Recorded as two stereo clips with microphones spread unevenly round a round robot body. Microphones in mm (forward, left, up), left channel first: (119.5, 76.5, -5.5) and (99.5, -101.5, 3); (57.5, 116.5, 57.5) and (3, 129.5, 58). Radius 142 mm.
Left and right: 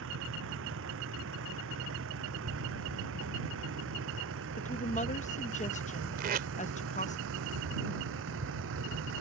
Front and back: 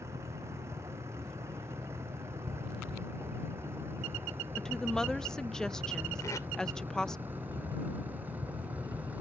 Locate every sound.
0.0 s a vehicle: 125° right; by 9.2 s 115° right
4.6 s a woman speaking: 60° left
6.2 s tape being pulled: 60° right